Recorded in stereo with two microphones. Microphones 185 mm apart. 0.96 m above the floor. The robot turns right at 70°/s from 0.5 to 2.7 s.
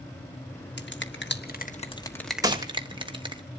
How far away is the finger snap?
About 1.3 m.